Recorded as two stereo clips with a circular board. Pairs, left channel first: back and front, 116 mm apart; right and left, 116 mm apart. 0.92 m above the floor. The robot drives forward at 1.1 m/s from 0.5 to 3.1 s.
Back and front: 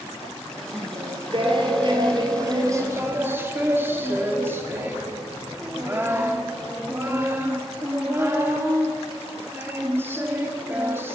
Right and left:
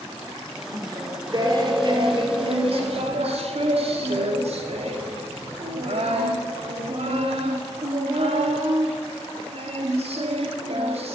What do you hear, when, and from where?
0.7 s singing: 35° left, 4.5 m; by 11.2 s 70° left, 2.5 m